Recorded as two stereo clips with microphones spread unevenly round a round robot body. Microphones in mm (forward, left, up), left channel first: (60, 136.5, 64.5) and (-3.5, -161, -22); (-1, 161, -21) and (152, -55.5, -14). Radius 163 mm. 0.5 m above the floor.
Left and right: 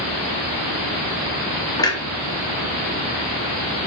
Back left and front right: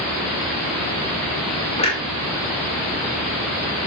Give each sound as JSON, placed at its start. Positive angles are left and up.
{"t": 1.8, "sound": "a clunk", "azimuth_deg": 175, "distance_m": 1.4}